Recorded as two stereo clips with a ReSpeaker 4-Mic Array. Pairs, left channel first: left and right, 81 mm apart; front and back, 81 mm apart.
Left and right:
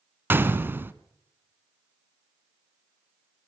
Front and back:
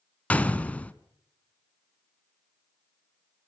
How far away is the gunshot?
About 1.0 m.